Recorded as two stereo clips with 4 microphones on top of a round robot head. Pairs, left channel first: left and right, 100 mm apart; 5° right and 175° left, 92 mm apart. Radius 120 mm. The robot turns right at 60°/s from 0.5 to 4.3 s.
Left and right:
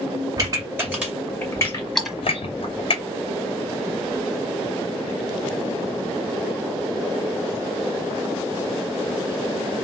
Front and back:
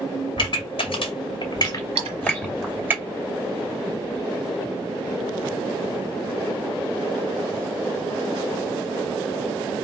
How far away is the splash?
About 1.4 m.